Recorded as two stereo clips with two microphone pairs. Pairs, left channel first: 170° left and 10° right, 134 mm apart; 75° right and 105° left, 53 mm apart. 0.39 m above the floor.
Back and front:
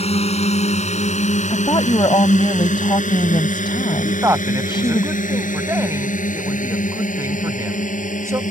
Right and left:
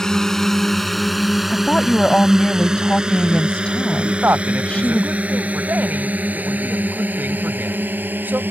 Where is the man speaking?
55° left.